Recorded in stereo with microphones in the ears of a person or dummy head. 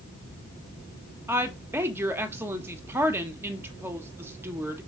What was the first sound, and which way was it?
A woman speaking, 15° right (ahead or behind).